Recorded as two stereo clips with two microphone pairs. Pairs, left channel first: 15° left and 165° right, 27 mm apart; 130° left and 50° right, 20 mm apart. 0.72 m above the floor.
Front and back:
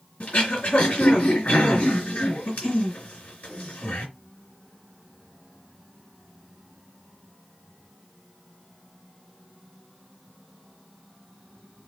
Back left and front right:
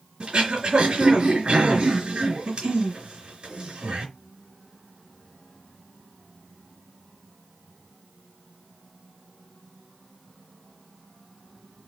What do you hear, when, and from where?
0.2 s throat clearing: 5° right, 3.5 m